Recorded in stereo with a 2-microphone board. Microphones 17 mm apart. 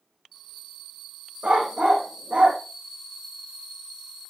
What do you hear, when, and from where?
1.4 s a dog barking: 80° right, 3 m; by 2.6 s 85° right, 3.5 m